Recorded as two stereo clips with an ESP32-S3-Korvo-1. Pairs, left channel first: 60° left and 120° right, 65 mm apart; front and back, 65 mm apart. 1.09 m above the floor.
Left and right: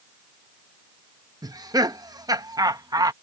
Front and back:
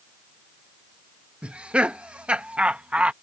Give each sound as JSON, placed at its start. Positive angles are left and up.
{"t": 1.4, "sound": "laughter", "azimuth_deg": -105}